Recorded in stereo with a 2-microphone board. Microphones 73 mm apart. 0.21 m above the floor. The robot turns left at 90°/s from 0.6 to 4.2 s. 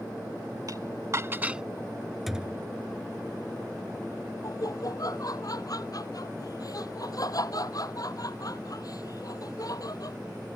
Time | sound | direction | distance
0.7 | dishes clattering | 55° right (ahead or behind) | ?
2.3 | a thud | straight ahead | ?
4.4 | laughter | 55° left (ahead or behind) | ?